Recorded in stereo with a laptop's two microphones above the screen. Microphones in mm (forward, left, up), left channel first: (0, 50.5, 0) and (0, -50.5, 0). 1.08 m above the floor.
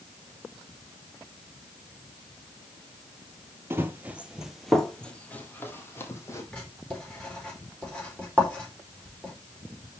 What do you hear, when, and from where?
3.7 s running footsteps: 25° right (ahead or behind), 1.2 m; by 6.4 s 30° left (ahead or behind), 2.0 m
6.5 s writing: 10° left (ahead or behind), 4 m